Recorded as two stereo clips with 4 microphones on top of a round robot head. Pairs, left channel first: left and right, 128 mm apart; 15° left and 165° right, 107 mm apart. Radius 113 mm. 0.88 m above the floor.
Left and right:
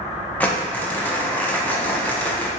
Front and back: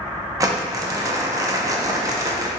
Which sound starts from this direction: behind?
Crumpling, at 0.4 s.